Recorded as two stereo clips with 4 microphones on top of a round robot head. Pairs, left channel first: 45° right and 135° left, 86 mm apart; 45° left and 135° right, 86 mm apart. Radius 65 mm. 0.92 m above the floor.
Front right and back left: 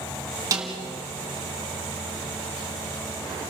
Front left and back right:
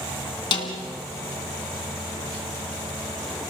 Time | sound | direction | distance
0.5 | a snare drum | 80° left | 2.5 m